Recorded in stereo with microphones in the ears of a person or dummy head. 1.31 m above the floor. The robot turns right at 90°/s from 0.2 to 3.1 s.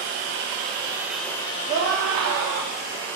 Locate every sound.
0.0 s running water: 90° right, 1.8 m; by 3.2 s 170° left, 1.8 m
1.7 s a scream: 140° right, 2 m; by 2.7 s 50° right, 2 m